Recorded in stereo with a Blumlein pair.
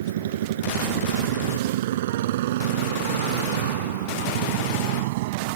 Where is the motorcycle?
60° right; by 5.6 s 50° right.